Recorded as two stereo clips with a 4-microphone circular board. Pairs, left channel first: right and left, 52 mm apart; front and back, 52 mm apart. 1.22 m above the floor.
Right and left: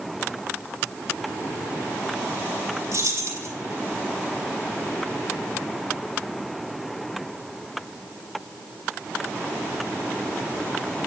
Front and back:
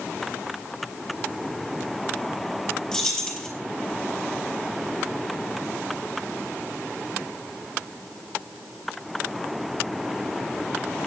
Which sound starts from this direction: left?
Keys jangling, at 2.9 s.